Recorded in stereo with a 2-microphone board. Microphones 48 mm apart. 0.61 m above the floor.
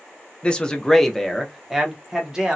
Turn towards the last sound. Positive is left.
turn(degrees=-10)  # may be behind; listen again after turning